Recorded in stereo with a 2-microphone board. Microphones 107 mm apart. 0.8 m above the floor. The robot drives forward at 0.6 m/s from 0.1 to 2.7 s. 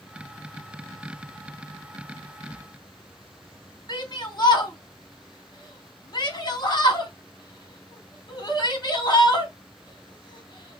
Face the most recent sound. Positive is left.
turn(degrees=40)  # may be behind; listen again after turning